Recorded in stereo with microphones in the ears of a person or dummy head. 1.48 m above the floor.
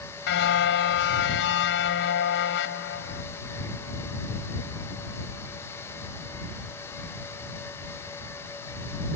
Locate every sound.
0.3 s a car horn: 70° left (ahead or behind)